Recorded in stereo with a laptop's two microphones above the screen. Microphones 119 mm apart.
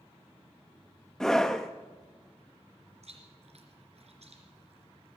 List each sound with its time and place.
1.2 s a scream: 5° left (ahead or behind), 0.7 m
3.0 s chewing: 70° right (ahead or behind), 3 m